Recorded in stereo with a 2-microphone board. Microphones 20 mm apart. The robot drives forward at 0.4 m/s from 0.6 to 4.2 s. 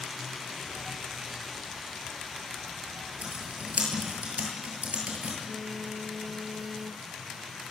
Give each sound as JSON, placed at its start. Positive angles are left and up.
{"t": 3.2, "sound": "typing on a keyboard", "side_deg": -85, "distance_m": 9.0}
{"t": 5.5, "sound": "a phone buzzing", "side_deg": -15, "distance_m": 0.6}